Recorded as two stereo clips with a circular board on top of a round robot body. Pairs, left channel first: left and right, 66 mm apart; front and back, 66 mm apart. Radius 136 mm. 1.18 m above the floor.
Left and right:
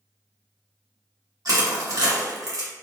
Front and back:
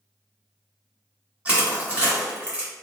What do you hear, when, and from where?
1.4 s crushing: 110° right, 1.4 m